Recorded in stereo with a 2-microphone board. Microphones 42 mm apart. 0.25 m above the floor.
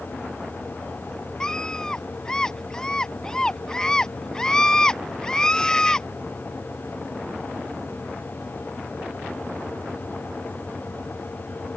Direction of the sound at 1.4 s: 15° left (ahead or behind).